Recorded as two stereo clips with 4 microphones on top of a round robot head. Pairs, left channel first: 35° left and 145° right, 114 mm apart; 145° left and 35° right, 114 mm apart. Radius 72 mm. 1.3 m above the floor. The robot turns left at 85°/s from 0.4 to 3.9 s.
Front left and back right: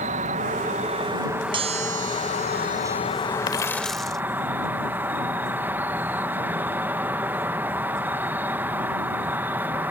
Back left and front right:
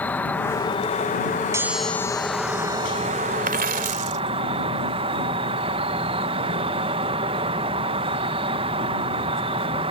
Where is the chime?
100° right; by 4.1 s 60° left.